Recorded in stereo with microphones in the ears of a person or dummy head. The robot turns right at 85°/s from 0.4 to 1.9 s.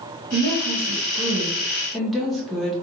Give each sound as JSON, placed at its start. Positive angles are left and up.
{"t": 0.3, "sound": "a woman speaking", "azimuth_deg": -125, "distance_m": 0.7}